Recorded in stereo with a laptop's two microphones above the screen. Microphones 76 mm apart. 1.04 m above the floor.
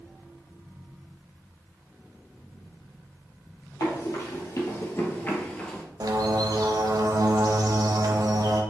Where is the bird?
55° right (ahead or behind), 0.6 m.